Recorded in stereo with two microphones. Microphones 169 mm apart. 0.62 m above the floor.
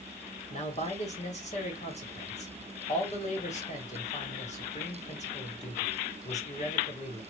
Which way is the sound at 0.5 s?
40° left (ahead or behind).